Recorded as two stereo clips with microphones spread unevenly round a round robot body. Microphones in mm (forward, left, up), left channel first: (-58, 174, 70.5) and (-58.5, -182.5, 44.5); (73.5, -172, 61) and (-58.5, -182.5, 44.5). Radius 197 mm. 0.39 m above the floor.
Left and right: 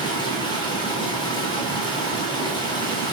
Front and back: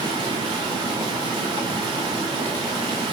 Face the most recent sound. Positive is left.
turn(degrees=165)